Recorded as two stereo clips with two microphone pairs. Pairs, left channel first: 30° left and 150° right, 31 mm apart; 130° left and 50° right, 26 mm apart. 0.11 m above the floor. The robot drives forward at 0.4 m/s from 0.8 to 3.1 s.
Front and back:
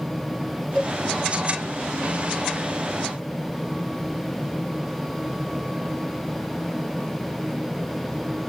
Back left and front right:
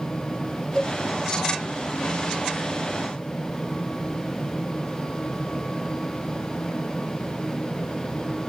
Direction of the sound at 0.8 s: 80° left.